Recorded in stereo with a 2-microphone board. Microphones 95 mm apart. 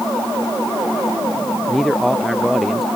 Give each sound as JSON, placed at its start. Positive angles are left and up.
{"t": 1.7, "sound": "a man speaking", "side_deg": 0}